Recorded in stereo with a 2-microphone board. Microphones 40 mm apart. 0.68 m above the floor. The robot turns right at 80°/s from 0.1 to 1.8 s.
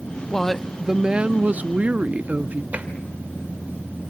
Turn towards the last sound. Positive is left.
turn(degrees=-40)  # may be behind; listen again after turning